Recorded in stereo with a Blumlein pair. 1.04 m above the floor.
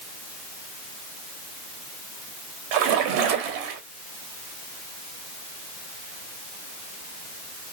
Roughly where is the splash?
Ahead right.